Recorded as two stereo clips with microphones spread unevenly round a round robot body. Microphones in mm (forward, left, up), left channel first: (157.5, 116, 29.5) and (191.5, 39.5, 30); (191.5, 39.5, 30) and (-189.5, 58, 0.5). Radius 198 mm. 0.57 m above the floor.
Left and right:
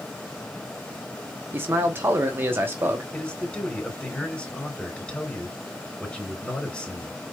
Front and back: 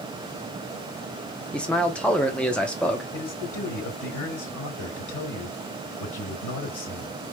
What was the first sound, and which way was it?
A man speaking, 95° right.